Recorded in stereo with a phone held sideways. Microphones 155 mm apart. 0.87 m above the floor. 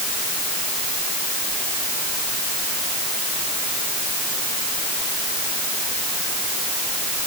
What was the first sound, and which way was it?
Only background noise.